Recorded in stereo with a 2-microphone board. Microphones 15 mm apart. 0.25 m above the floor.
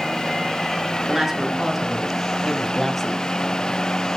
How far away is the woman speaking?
About 3.5 m.